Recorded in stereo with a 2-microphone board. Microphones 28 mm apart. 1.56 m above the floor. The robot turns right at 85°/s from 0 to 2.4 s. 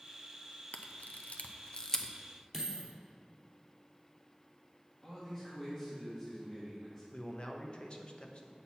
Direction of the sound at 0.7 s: 55° left (ahead or behind).